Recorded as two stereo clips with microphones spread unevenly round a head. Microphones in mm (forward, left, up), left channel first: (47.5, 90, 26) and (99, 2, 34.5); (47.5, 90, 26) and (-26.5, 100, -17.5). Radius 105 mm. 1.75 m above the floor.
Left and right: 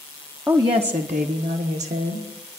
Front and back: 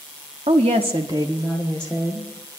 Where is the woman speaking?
140° right, 0.8 m; by 2.6 s 70° right, 1.5 m.